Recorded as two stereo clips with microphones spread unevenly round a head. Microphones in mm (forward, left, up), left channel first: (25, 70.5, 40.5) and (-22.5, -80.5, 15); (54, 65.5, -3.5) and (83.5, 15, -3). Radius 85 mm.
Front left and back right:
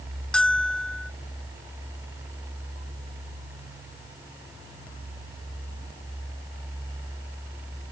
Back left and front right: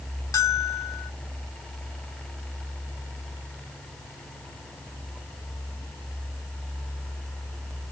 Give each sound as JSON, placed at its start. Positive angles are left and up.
{"t": 0.3, "sound": "a bell", "azimuth_deg": 155}